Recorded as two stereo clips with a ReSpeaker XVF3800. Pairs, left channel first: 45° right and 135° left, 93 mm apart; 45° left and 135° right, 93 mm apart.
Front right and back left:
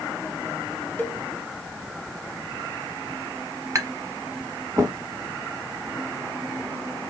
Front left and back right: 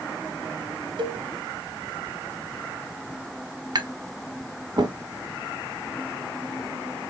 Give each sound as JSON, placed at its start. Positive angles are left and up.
{"t": 1.0, "sound": "a cowbell", "azimuth_deg": -115, "distance_m": 0.9}
{"t": 3.8, "sound": "tapping", "azimuth_deg": -170, "distance_m": 0.9}